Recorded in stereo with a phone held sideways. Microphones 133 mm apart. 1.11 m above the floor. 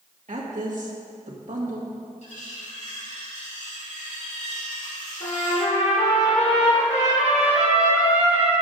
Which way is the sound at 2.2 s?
65° left (ahead or behind).